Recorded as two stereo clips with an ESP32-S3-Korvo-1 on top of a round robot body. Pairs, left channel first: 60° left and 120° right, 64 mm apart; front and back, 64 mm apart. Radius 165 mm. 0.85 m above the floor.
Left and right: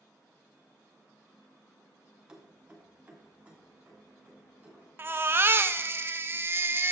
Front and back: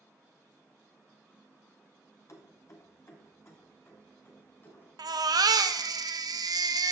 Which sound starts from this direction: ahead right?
Keys jangling, at 2.3 s.